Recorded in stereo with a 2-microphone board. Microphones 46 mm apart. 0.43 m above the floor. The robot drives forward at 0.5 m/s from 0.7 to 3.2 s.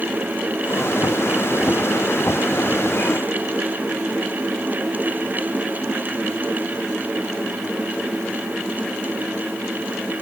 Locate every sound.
Only background noise.